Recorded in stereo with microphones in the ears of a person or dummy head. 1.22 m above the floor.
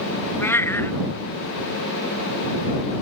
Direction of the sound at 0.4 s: 10° left (ahead or behind).